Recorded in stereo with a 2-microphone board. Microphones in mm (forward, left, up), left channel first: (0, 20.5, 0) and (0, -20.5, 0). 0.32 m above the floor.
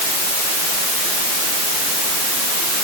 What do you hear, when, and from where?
Only background noise.